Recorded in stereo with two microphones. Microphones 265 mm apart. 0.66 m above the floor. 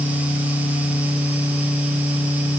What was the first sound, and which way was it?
Only background noise.